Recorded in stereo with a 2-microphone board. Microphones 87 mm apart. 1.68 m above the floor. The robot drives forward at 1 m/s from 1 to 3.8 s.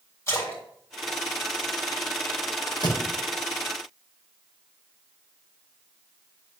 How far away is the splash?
About 4 m.